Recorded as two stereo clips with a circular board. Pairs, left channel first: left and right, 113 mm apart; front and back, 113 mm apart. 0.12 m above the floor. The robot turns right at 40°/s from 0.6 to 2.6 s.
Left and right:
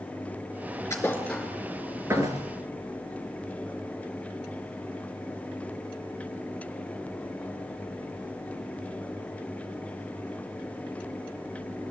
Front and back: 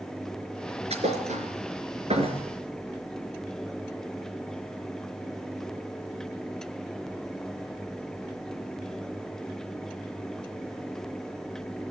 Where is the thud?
155° left, 3.5 m; by 2.4 s 140° right, 3.5 m.